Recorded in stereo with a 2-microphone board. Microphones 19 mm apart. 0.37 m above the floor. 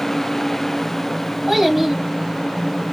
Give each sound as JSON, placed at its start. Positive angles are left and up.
{"t": 1.5, "sound": "a child speaking", "side_deg": -15, "distance_m": 1.4}